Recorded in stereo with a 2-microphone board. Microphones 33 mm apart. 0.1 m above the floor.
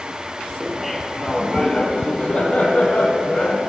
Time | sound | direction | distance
0.6 | laughter | 10° right (ahead or behind) | 1.7 m